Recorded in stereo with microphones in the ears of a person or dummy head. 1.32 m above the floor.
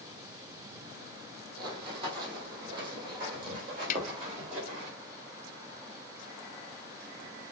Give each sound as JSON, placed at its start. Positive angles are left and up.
{"t": 1.6, "sound": "running footsteps", "side_deg": -30, "distance_m": 3.0}
{"t": 3.9, "sound": "a snare drum", "side_deg": 50, "distance_m": 1.0}